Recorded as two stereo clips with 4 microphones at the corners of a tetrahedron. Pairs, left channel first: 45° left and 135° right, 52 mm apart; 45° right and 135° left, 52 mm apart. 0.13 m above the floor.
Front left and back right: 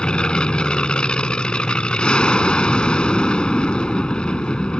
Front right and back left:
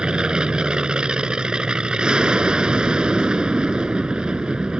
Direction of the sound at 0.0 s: 90° left.